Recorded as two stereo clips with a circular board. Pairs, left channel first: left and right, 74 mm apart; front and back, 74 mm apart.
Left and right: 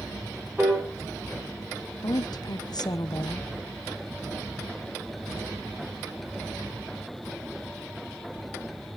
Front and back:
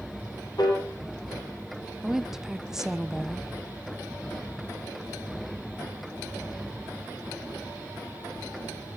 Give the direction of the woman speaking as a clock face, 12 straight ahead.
9 o'clock.